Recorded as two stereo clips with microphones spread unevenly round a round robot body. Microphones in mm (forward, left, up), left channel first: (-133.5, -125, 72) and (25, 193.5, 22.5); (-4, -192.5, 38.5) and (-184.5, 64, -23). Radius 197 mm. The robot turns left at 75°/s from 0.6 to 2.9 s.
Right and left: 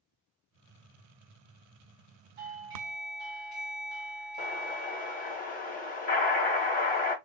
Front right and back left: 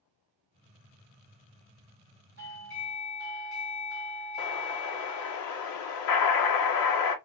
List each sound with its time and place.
2.4 s a doorbell: 20° left, 2 m; by 5.4 s 20° right, 2 m
4.4 s an explosion: 45° right, 0.7 m